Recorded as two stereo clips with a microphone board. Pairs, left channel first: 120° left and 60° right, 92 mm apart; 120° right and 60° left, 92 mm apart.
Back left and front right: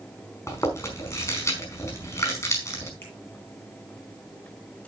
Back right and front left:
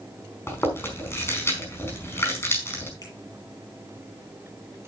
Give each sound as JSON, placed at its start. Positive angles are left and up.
{"t": 0.5, "sound": "chewing", "azimuth_deg": 175, "distance_m": 4.5}
{"t": 3.0, "sound": "a finger snap", "azimuth_deg": -175, "distance_m": 10.0}